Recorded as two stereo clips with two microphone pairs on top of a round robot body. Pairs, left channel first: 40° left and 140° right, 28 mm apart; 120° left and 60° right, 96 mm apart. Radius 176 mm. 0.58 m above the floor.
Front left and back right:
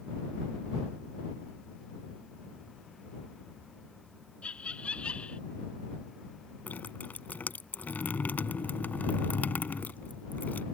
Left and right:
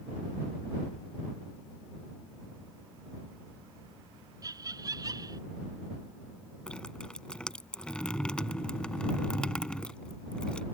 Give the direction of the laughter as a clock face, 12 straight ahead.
12 o'clock.